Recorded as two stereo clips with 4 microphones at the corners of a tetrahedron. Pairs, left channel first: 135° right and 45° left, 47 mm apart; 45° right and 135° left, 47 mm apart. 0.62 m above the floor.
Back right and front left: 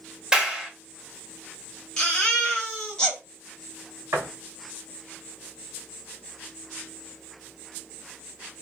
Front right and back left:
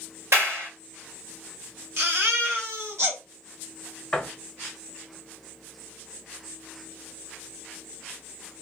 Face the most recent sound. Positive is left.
turn(degrees=30)